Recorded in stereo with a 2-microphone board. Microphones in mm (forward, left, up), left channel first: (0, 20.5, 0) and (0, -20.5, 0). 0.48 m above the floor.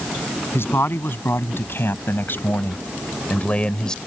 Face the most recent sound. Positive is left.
turn(degrees=20)  # may be behind; listen again after turning